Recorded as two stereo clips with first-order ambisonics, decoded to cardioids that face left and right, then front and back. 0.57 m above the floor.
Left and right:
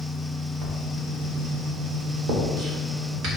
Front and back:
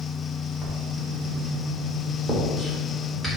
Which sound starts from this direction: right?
Writing, at 0.6 s.